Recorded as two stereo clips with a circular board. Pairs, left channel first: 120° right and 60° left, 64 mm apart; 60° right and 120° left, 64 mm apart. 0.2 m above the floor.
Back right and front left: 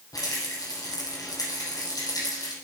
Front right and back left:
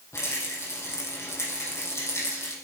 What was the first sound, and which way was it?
A rattle, 100° right.